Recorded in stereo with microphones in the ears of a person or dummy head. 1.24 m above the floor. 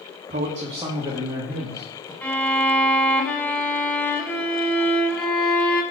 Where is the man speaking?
40° right (ahead or behind), 0.8 m; by 2.1 s centre (ahead or behind), 1.4 m.